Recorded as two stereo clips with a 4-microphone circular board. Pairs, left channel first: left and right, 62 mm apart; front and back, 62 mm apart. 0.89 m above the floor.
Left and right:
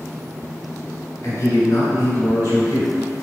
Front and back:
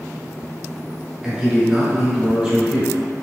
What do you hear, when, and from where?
1.2 s a man speaking: 100° left, 1.1 m